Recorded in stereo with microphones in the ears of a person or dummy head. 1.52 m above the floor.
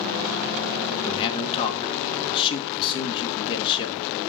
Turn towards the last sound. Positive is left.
turn(degrees=30)  # may be behind; listen again after turning